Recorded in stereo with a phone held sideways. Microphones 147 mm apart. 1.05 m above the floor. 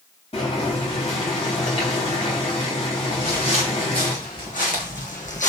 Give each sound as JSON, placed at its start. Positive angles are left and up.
{"t": 0.3, "sound": "boiling", "side_deg": 45, "distance_m": 3.0}
{"t": 3.1, "sound": "footsteps", "side_deg": 55, "distance_m": 5.0}